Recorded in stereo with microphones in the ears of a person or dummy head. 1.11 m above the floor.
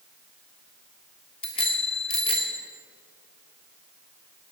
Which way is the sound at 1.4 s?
30° left (ahead or behind).